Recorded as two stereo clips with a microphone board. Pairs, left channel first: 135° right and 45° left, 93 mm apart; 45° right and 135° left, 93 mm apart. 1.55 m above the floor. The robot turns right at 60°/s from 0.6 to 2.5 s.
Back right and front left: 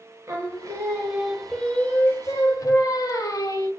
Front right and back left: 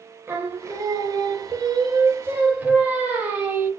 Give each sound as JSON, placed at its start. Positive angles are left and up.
{"t": 0.3, "sound": "singing", "azimuth_deg": 90, "distance_m": 1.2}